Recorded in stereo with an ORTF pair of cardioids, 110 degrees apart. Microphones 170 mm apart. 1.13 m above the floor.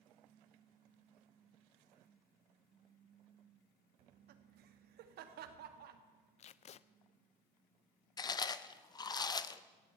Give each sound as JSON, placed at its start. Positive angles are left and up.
{"t": 4.0, "sound": "laughter", "azimuth_deg": -70, "distance_m": 1.7}
{"t": 6.4, "sound": "tape being pulled", "azimuth_deg": 40, "distance_m": 0.5}
{"t": 8.2, "sound": "chewing", "azimuth_deg": 25, "distance_m": 0.7}